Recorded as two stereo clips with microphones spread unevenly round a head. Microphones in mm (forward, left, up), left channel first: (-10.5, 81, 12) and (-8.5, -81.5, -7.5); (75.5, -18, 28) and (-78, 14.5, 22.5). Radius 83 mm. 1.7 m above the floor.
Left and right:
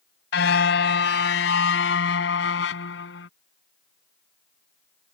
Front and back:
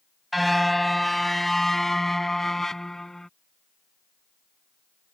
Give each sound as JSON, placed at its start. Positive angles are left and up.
{"t": 0.3, "sound": "a car horn", "azimuth_deg": 75}